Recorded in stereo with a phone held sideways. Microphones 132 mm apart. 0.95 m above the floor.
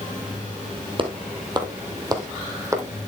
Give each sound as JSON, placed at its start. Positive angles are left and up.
{"t": 1.0, "sound": "footsteps", "side_deg": -40, "distance_m": 1.7}